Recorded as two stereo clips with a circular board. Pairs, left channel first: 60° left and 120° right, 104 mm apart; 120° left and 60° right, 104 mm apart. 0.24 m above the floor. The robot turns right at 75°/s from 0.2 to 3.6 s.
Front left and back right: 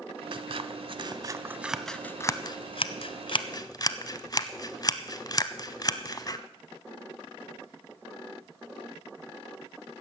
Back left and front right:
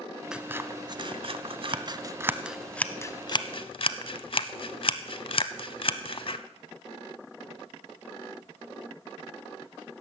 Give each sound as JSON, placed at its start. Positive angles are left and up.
{"t": 0.3, "sound": "scissors", "azimuth_deg": -145, "distance_m": 0.6}